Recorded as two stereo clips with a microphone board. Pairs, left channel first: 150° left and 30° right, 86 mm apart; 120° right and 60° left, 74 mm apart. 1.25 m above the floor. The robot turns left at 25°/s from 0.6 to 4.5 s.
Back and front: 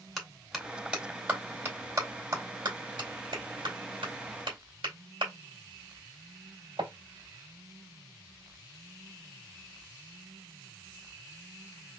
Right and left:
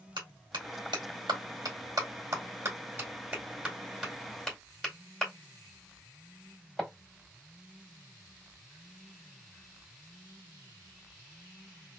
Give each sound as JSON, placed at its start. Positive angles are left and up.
{"t": 0.2, "sound": "a clap", "azimuth_deg": 60, "distance_m": 2.0}